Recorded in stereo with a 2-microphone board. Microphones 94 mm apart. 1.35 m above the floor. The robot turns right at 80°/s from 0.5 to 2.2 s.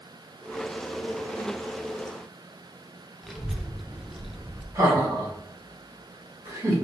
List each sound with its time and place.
3.2 s a child speaking: 5° right (ahead or behind), 0.6 m
4.8 s laughter: 30° right (ahead or behind), 1.8 m